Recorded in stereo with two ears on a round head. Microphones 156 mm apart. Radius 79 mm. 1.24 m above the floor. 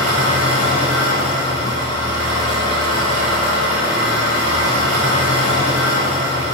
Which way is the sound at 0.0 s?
85° right.